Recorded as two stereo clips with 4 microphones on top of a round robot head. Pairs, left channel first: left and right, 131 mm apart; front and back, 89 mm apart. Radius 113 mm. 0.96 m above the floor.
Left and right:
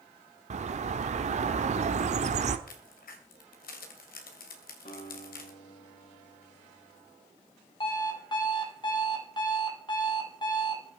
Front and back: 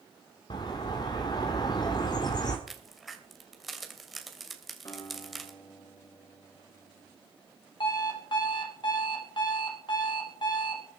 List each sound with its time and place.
0.5 s a bird: 55° right, 1.2 m
2.7 s a crack: 90° left, 2.5 m
4.8 s a guitar: 55° left, 7 m
7.8 s an alarm clock: 35° left, 4 m